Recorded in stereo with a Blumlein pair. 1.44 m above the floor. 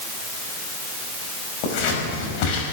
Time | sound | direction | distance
1.6 | scissors | 45° left | 6 m